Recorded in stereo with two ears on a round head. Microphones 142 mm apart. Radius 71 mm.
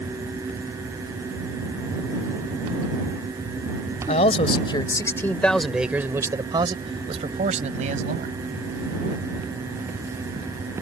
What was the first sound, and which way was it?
A man speaking, 45° left (ahead or behind).